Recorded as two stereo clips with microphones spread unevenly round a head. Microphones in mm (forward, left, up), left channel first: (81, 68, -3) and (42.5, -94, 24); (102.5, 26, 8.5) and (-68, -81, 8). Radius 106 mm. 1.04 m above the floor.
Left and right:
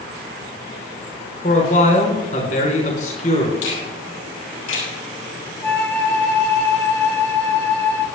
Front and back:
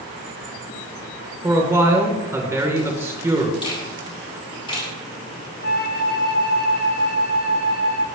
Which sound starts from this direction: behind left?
A man speaking, at 1.4 s.